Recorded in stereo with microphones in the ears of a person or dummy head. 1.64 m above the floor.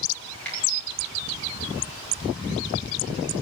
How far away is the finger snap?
About 5 m.